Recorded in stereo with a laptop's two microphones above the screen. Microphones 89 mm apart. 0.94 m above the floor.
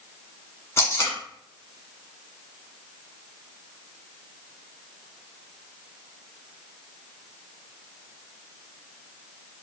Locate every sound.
0.8 s tape being pulled: 30° left (ahead or behind), 1.8 m